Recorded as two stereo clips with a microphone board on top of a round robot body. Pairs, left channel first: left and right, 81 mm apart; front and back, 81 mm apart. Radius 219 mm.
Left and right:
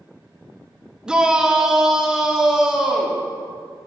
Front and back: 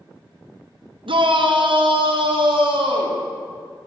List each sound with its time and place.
1.1 s a shout: 170° right, 1.8 m; by 3.2 s 175° right, 3 m